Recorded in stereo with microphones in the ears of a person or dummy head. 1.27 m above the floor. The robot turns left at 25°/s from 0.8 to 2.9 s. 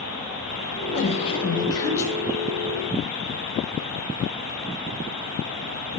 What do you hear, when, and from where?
0.9 s a woman speaking: 45° left, 0.8 m; by 2.1 s 15° left, 0.8 m